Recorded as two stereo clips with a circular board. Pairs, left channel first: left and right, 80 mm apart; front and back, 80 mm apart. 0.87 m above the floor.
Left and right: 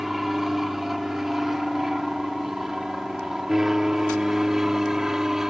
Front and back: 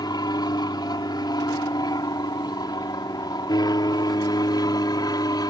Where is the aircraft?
5° right.